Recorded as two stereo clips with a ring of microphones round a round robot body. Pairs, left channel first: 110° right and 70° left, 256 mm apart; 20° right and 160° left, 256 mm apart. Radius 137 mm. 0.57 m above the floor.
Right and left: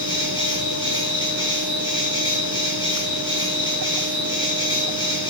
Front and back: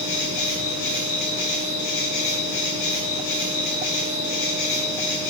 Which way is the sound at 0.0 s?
40° right.